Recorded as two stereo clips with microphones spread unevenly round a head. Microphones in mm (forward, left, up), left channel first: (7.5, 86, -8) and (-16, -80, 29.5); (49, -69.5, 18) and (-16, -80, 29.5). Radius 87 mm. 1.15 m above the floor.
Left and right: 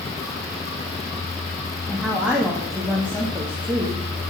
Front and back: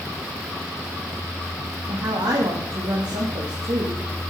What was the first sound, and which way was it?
A woman speaking, 175° left.